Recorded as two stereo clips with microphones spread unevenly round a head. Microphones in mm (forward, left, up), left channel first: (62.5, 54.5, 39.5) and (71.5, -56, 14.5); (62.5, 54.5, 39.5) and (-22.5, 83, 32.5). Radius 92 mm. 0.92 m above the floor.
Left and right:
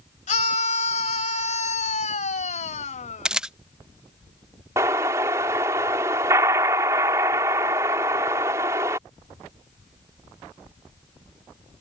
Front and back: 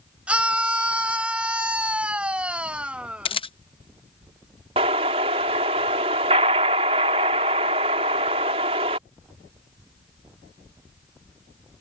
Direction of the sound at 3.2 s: 10° right.